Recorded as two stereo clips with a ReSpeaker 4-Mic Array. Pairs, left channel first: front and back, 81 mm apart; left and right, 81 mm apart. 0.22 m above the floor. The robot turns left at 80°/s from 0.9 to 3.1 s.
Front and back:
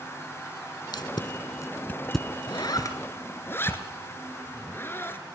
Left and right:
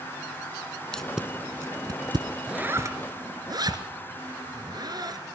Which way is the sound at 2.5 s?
10° right.